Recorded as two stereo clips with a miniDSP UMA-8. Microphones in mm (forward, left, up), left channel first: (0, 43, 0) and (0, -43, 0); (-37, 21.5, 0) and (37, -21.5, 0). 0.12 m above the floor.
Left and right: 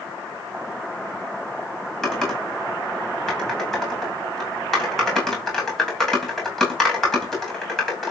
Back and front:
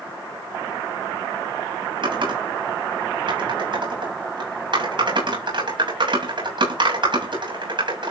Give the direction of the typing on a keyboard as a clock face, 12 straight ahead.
12 o'clock.